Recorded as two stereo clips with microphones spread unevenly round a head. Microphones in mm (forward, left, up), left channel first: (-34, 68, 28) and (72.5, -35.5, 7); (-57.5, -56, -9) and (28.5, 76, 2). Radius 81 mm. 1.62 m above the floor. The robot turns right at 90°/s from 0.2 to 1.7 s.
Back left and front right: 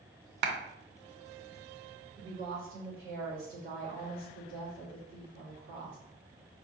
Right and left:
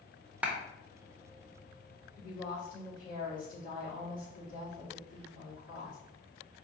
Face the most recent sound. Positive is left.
turn(degrees=-80)